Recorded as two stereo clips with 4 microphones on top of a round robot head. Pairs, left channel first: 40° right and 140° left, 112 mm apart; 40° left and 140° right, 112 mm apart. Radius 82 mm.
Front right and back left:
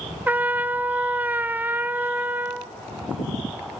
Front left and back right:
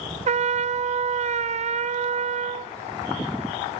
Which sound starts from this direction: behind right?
A trumpet, at 0.3 s.